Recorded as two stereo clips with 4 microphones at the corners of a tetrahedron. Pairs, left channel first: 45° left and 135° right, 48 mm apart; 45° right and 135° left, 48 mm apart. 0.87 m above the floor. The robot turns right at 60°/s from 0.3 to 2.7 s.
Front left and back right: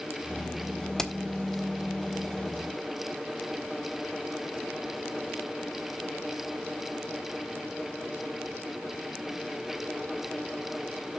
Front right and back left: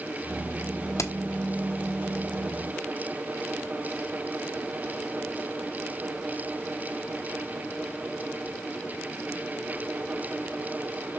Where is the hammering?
35° right, 1.0 m; by 1.1 s 30° right, 1.0 m.